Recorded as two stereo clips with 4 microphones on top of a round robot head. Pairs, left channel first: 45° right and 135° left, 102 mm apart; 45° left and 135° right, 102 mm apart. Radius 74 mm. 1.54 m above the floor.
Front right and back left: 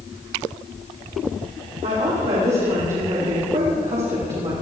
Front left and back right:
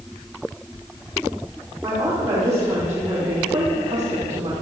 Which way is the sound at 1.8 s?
155° left.